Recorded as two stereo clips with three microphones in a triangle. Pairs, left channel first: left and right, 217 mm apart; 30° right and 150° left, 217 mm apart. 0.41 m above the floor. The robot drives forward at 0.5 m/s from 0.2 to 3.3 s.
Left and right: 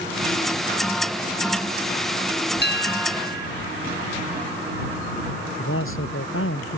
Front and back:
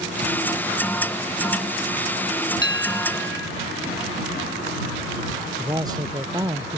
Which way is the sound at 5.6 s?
80° left.